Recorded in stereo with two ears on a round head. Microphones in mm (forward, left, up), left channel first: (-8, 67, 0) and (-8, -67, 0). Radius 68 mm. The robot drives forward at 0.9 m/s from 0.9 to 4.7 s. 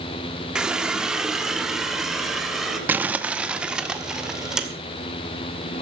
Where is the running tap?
5° right (ahead or behind), 1.2 m; by 2.8 s centre (ahead or behind), 3 m.